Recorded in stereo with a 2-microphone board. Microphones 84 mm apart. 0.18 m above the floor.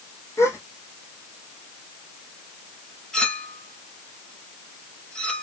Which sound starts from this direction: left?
A gasp, at 0.4 s.